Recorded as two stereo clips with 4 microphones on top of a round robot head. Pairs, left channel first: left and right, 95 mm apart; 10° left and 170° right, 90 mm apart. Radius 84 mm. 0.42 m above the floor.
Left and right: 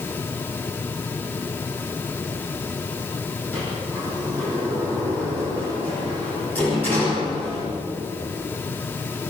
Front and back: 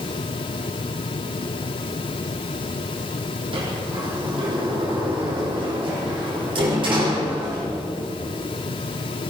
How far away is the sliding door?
About 8.5 m.